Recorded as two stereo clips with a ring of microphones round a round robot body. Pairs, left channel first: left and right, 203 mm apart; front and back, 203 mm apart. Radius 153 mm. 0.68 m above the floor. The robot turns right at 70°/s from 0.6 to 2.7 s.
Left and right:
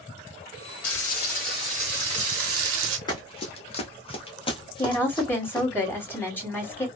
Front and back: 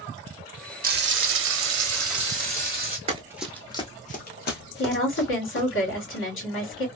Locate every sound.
0.8 s frying: 135° left, 0.8 m; by 3.0 s 95° right, 0.8 m
3.1 s running footsteps: 150° left, 0.7 m; by 5.7 s 20° left, 2 m
4.8 s a woman speaking: 10° left, 2 m